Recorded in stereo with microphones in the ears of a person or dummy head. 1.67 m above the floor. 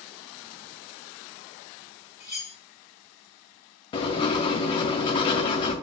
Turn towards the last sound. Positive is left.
turn(degrees=30)  # may be behind; listen again after turning